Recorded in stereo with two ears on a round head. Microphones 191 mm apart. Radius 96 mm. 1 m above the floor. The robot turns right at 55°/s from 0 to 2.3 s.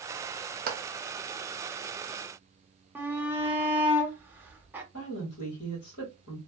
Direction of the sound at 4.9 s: 60° left (ahead or behind).